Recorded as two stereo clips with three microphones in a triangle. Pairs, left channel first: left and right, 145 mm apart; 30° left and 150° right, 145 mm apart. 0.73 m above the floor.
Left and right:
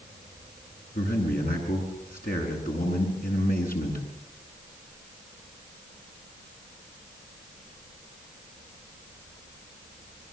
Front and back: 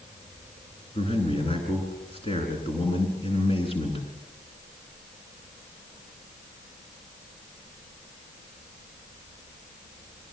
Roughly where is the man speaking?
Left.